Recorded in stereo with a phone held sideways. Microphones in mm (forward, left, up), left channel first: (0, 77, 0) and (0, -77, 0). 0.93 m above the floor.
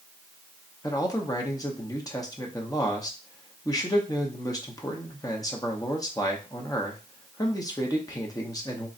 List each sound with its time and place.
0.8 s a man speaking: 25° left (ahead or behind), 0.8 m